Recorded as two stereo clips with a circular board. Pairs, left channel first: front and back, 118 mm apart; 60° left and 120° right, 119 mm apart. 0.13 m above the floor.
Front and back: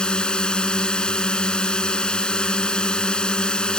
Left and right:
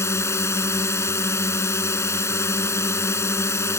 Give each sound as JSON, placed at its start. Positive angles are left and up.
{"t": 0.0, "sound": "a drone", "azimuth_deg": 70}